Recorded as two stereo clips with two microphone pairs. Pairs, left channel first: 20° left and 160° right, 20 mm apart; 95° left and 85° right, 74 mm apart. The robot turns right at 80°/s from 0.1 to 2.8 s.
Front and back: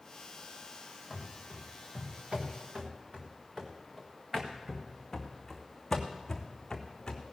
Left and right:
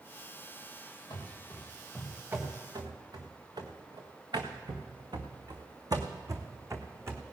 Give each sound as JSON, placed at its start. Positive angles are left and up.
{"t": 1.1, "sound": "running footsteps", "azimuth_deg": 115, "distance_m": 3.5}